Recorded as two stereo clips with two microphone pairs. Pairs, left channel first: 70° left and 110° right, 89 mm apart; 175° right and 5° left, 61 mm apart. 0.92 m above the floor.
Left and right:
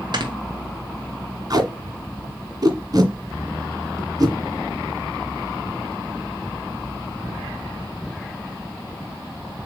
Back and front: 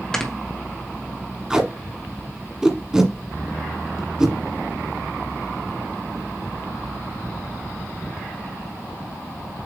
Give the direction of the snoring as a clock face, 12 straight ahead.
3 o'clock.